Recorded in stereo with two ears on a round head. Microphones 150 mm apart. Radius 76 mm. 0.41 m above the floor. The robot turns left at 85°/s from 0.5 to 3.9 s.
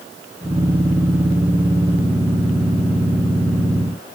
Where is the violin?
I don't hear a violin.